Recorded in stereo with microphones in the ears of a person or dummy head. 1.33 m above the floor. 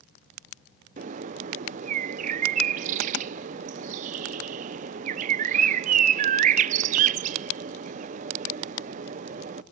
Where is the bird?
45° right (ahead or behind), 0.6 m.